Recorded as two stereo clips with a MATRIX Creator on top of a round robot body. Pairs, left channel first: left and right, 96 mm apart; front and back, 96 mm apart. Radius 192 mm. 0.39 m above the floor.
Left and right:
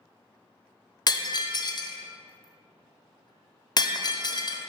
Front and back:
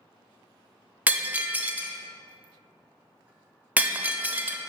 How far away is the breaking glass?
About 0.7 m.